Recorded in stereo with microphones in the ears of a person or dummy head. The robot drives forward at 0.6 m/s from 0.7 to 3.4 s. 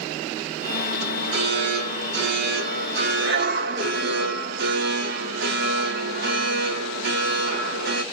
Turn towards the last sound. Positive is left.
turn(degrees=-70)  # may be behind; listen again after turning